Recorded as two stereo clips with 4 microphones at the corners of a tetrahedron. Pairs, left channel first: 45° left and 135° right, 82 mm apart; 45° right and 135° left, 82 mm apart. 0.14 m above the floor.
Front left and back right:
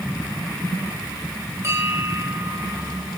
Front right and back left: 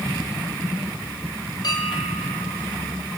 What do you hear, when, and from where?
1.6 s a bell: 75° right, 6 m